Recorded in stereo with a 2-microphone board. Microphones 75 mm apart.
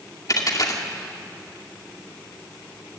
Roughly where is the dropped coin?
Left.